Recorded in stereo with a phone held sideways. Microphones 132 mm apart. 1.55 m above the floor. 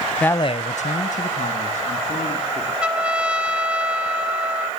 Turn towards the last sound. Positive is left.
turn(degrees=-10)  # may be behind; listen again after turning